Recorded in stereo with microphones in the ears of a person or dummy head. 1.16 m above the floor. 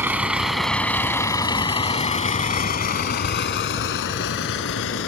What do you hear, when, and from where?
0.0 s a vehicle: 15° right (ahead or behind); by 5.1 s 70° left (ahead or behind)